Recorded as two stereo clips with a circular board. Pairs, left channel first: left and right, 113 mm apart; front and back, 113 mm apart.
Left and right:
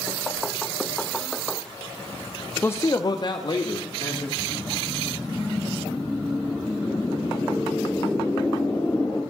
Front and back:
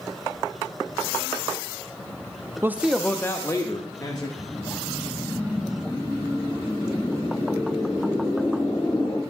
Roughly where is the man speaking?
Behind left.